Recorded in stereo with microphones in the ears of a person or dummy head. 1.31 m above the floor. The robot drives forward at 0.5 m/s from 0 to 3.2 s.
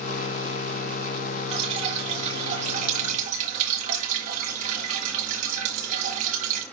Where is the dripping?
30° right (ahead or behind), 3 m; by 6.6 s 35° right (ahead or behind), 2.5 m.